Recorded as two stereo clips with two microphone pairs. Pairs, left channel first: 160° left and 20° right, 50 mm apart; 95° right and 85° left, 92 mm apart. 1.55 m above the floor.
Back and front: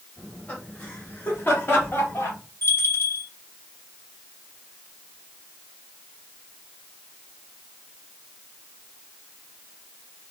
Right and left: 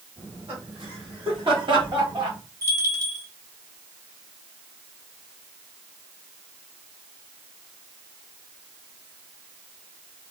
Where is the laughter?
95° left, 3 m; by 2.4 s 120° left, 2.5 m.